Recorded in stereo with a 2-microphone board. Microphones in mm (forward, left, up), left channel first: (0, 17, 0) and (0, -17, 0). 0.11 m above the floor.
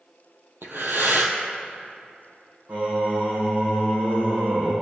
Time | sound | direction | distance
0.6 | breathing | 70° right (ahead or behind) | 1.4 m
2.7 | singing | 60° right (ahead or behind) | 4 m